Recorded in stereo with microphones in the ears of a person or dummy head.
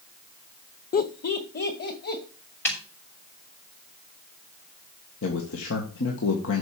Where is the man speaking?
70° left (ahead or behind), 1.9 m.